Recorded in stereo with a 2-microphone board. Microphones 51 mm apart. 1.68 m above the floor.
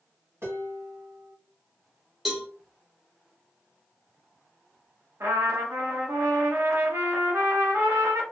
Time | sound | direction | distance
0.4 | dishes clattering | 65° right (ahead or behind) | 1.6 m
2.2 | a cowbell | 5° right (ahead or behind) | 0.7 m
5.2 | a trumpet | 80° right | 0.9 m